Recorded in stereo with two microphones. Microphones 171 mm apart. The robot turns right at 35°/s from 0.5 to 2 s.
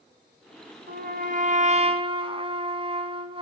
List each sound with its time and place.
0.9 s a trumpet: 75° right, 3 m; by 3.4 s 35° right, 3 m